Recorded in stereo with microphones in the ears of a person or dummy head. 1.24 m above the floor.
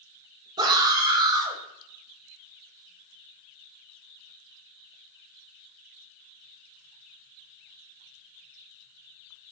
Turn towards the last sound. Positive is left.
turn(degrees=-20)  # may be behind; listen again after turning